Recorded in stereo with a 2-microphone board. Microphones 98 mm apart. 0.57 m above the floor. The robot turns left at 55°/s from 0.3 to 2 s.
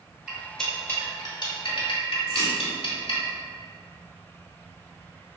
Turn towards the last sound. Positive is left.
turn(degrees=-30)  # may be behind; listen again after turning